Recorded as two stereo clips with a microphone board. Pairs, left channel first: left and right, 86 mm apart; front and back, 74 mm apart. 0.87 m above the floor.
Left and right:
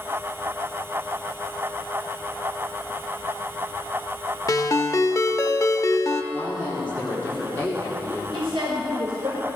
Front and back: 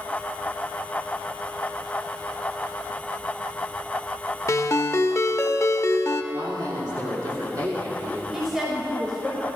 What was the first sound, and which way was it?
A ringtone, 45° left.